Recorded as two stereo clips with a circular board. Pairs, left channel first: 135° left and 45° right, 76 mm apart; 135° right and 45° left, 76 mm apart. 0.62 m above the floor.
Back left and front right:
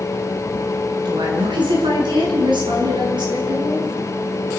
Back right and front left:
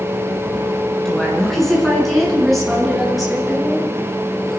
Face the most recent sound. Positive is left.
turn(degrees=-45)